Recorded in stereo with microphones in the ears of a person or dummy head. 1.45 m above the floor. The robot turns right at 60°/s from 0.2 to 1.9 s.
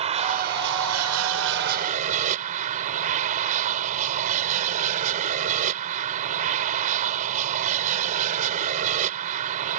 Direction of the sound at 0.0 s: 145° right.